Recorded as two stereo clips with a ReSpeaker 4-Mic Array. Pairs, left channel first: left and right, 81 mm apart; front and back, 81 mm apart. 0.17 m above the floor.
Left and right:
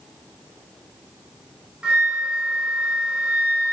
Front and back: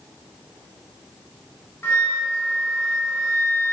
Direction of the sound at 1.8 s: 25° right.